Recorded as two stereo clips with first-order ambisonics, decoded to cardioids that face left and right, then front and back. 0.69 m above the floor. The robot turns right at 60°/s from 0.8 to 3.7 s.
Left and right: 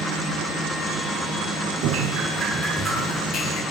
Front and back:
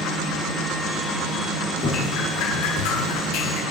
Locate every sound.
1.8 s dripping: 60° right, 4.5 m; by 3.6 s 50° left, 4.5 m